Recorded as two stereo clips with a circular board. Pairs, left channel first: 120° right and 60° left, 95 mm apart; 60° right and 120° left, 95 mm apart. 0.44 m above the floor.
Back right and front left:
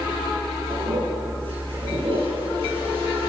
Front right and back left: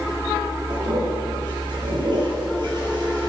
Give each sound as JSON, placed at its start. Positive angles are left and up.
{"t": 0.7, "sound": "a toilet flushing", "azimuth_deg": 80, "distance_m": 6.5}